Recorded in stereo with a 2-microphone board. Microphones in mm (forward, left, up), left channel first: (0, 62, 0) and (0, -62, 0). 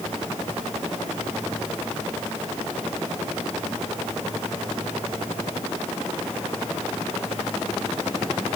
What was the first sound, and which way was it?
Only background noise.